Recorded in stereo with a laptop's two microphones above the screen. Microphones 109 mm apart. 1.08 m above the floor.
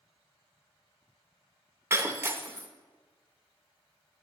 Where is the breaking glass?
25° right (ahead or behind), 0.5 m.